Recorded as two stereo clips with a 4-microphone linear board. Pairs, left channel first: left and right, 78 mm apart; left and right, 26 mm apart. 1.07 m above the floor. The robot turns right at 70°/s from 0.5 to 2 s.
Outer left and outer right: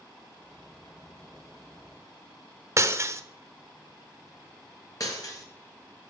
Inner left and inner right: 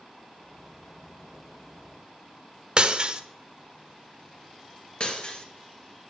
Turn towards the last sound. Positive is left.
turn(degrees=50)  # may be behind; listen again after turning